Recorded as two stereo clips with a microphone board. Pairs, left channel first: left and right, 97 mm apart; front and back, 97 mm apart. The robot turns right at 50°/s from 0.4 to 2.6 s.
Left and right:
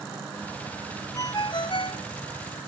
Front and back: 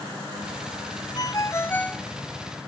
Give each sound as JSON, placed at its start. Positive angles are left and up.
{"t": 1.1, "sound": "a ringtone", "azimuth_deg": 40}